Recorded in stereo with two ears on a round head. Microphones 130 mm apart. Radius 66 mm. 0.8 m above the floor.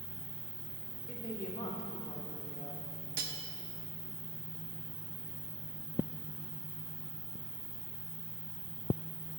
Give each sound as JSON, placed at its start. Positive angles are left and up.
{"t": 0.0, "sound": "an insect", "side_deg": -50, "distance_m": 3.0}
{"t": 1.1, "sound": "a woman speaking", "side_deg": 25, "distance_m": 1.3}
{"t": 3.2, "sound": "cutlery clinking", "side_deg": -70, "distance_m": 0.8}